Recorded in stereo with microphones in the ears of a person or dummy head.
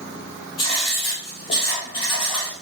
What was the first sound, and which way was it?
Writing, 35° left (ahead or behind).